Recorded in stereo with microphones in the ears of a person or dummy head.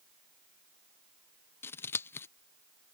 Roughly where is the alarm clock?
No alarm clock in this recording.